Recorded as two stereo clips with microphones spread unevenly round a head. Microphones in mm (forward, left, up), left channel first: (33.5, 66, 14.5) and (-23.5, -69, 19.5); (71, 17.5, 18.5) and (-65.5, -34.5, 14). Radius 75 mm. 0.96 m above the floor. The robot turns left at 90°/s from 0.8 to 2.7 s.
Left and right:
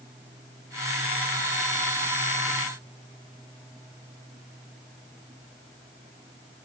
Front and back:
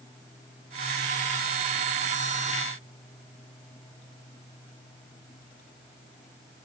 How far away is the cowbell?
I don't hear a cowbell.